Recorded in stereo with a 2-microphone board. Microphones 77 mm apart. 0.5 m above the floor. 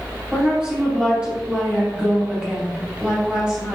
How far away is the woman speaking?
About 2.5 m.